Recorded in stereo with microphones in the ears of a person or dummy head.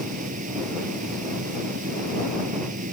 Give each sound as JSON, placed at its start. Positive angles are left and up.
{"t": 0.0, "sound": "a fan", "side_deg": -45}